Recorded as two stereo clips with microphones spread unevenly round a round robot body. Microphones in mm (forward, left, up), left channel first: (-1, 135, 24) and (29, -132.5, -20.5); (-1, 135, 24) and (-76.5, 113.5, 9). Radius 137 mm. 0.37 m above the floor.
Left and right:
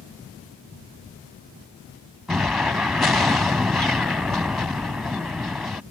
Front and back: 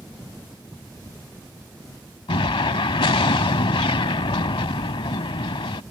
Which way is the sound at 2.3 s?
5° left.